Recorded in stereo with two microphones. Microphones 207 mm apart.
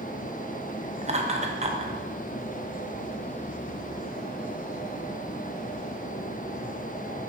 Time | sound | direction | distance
1.0 | laughter | 35° right (ahead or behind) | 1.0 m